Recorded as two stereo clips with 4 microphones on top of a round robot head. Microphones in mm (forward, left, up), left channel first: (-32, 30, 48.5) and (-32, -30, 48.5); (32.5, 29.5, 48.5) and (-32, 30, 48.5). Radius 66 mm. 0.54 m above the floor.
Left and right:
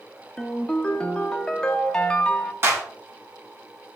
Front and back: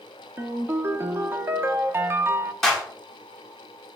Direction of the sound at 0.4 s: 160° left.